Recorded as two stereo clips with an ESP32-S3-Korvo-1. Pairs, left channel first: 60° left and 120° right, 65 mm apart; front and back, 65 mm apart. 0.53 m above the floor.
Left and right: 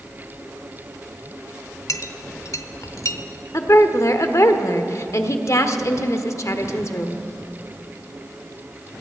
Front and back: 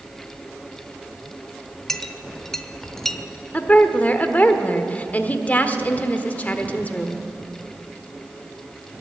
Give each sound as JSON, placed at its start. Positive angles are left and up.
{"t": 1.9, "sound": "a clink", "azimuth_deg": 85, "distance_m": 0.8}
{"t": 3.5, "sound": "a woman speaking", "azimuth_deg": 60, "distance_m": 1.1}